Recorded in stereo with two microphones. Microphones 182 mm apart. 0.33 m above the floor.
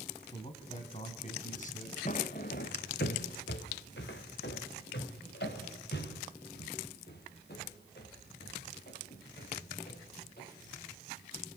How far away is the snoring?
No snoring in this recording.